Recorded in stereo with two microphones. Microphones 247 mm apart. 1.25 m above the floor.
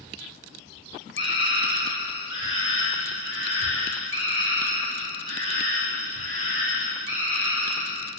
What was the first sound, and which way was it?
A scream, 50° left (ahead or behind).